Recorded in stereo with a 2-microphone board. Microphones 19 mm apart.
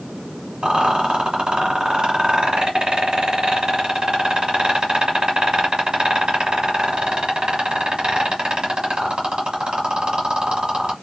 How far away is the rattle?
About 1.2 m.